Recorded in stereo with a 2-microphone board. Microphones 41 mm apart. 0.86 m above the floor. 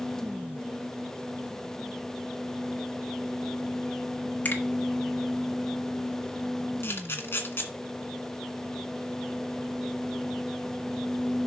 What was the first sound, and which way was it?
A finger snap, 45° left (ahead or behind).